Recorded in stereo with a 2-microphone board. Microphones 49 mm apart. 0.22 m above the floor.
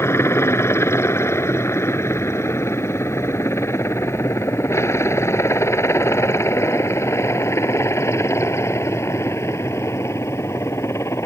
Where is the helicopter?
65° left (ahead or behind); by 11.3 s 70° left (ahead or behind).